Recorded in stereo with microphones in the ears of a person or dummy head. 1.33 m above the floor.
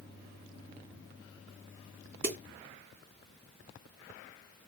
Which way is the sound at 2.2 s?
50° right (ahead or behind).